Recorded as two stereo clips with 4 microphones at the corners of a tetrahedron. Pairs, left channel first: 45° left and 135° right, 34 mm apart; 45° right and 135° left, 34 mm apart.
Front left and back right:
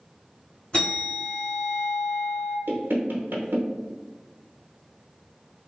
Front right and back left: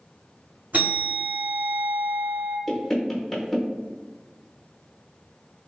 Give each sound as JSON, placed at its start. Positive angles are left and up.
{"t": 0.7, "sound": "a bell", "azimuth_deg": 105, "distance_m": 1.7}
{"t": 2.7, "sound": "knocking", "azimuth_deg": -125, "distance_m": 0.7}